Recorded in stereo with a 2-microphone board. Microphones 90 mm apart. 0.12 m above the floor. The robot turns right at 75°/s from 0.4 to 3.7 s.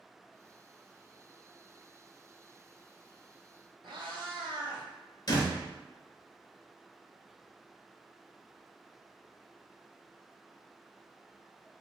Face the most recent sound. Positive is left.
turn(degrees=45)  # may be behind; listen again after turning